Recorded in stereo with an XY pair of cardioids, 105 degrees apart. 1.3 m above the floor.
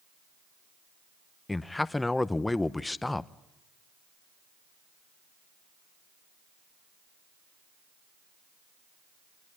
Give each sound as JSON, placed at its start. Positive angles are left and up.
{"t": 1.5, "sound": "a man speaking", "azimuth_deg": 15, "distance_m": 0.8}